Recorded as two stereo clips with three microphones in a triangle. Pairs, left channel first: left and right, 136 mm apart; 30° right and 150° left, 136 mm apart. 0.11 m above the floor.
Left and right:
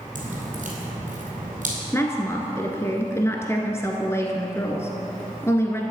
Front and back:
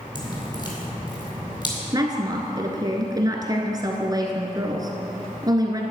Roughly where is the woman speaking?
Behind left.